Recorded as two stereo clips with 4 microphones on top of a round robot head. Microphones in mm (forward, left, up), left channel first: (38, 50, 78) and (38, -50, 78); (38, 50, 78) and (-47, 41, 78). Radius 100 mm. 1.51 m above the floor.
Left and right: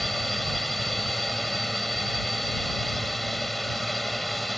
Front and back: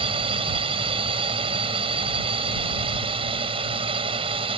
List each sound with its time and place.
0.0 s a drone: straight behind